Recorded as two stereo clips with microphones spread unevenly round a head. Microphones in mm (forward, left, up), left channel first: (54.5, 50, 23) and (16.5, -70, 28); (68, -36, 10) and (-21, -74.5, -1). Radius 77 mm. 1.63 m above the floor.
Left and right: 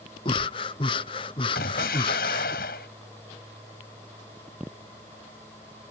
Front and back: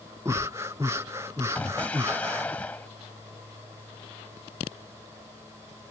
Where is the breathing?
130° left.